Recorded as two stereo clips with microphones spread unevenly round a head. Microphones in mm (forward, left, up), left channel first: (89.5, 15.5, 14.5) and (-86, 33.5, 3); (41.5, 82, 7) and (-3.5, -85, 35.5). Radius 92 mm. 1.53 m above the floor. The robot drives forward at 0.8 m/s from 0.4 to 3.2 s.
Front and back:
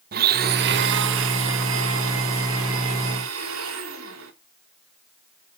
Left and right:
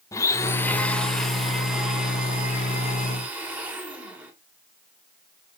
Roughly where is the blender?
Behind left.